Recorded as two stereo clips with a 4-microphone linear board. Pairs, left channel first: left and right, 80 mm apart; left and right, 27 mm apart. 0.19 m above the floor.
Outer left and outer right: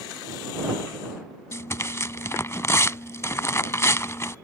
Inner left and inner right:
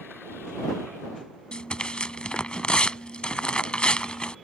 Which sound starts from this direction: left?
Tearing paper, at 1.5 s.